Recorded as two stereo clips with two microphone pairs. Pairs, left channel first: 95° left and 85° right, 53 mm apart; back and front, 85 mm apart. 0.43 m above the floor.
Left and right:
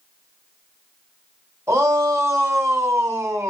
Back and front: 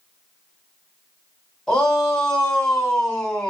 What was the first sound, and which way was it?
A shout, 95° right.